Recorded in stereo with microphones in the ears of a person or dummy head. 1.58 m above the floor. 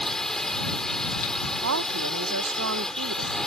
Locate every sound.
0.0 s a drone: 10° left (ahead or behind)
1.6 s a woman speaking: 65° right (ahead or behind)